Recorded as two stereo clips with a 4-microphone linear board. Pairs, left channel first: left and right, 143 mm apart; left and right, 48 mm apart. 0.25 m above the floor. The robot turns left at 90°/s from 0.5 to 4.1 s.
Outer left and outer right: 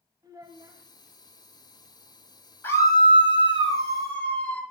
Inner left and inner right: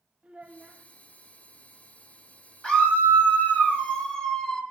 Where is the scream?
155° left, 1.4 m; by 4.6 s 25° left, 1.4 m.